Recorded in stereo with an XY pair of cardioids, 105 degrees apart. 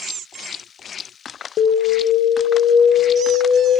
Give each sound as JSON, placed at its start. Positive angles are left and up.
{"t": 1.6, "sound": "an alarm", "azimuth_deg": 70, "distance_m": 0.7}